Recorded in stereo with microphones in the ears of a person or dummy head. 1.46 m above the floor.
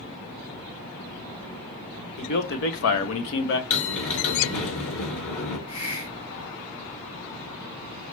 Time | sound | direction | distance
2.2 | a man speaking | 50° left (ahead or behind) | 0.9 m
3.7 | a bell | 70° left (ahead or behind) | 3 m
5.7 | a hiss | 80° left | 1.3 m